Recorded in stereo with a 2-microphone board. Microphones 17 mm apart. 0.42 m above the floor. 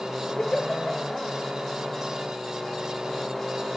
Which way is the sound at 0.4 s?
60° left (ahead or behind).